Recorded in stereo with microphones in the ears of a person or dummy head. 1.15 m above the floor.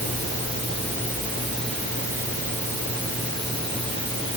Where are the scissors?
I don't hear scissors.